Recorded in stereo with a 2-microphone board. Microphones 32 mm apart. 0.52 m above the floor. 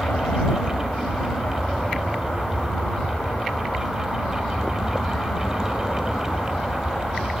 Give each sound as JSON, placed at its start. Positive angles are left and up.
{"t": 0.0, "sound": "an aircraft", "side_deg": 60}